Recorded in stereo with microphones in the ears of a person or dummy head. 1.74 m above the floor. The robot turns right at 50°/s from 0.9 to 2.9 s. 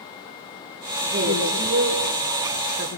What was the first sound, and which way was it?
A woman speaking, 140° right.